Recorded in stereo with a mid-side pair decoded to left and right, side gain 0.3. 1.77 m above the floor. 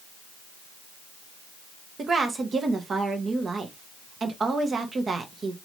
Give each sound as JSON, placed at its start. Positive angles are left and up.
{"t": 2.0, "sound": "a woman speaking", "azimuth_deg": -60, "distance_m": 1.1}